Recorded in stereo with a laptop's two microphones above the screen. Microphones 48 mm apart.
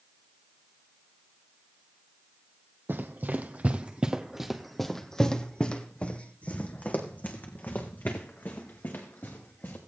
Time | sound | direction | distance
2.9 | running footsteps | 50° right (ahead or behind) | 1.7 m